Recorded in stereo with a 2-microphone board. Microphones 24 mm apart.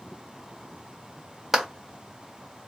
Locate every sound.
1.5 s a clap: 15° right (ahead or behind), 1.0 m